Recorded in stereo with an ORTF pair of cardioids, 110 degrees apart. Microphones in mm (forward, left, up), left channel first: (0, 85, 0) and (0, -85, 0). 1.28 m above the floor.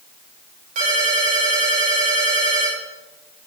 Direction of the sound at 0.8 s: 50° right.